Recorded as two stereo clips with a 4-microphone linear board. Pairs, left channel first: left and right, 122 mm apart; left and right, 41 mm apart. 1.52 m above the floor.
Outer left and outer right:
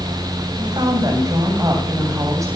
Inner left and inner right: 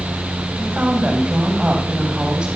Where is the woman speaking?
40° right (ahead or behind), 8.5 m; by 2.5 s 25° right (ahead or behind), 9 m.